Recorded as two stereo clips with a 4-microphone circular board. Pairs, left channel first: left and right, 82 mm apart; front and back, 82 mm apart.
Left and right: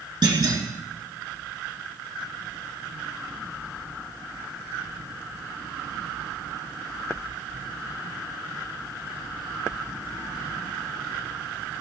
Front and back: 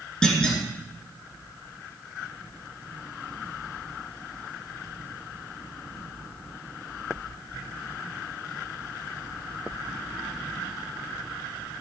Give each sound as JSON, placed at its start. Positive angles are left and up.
{"t": 0.2, "sound": "a clunk", "azimuth_deg": -80, "distance_m": 3.0}